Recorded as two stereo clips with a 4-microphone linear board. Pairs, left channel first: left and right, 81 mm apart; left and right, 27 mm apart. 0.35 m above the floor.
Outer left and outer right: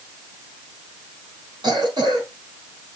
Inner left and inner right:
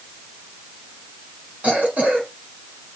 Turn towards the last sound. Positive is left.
turn(degrees=-60)  # may be behind; listen again after turning